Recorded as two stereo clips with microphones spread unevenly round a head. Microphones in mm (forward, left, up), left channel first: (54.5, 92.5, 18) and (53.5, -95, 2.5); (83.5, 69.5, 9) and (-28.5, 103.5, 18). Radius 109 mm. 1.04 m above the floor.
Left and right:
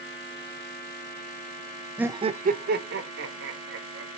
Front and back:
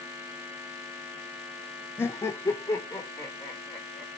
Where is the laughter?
25° right, 0.5 m; by 4.1 s 90° right, 1.9 m.